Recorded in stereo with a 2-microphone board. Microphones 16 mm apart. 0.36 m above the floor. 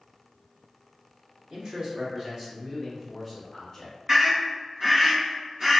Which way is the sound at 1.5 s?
45° right (ahead or behind).